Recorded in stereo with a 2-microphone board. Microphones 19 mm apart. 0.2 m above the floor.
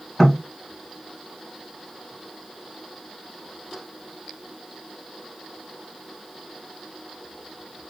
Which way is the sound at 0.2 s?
15° left (ahead or behind).